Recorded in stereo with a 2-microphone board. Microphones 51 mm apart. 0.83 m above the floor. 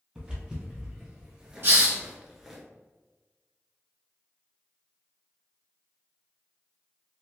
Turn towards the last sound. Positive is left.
turn(degrees=-50)  # may be behind; listen again after turning